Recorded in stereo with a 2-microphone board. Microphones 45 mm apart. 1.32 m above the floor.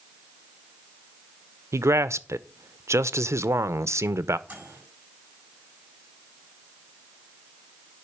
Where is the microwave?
30° right (ahead or behind), 8 m.